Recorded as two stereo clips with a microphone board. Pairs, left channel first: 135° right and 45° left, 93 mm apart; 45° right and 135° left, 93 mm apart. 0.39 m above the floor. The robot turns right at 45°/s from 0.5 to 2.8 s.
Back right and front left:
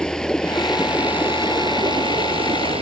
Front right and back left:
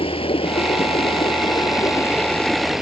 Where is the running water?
55° right; by 2.8 s 50° left.